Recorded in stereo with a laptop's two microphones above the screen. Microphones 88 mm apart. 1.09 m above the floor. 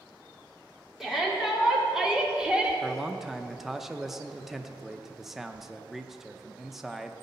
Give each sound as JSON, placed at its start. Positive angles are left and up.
{"t": 1.0, "sound": "a shout", "side_deg": -5, "distance_m": 3.5}
{"t": 2.8, "sound": "a man speaking", "side_deg": -5, "distance_m": 0.6}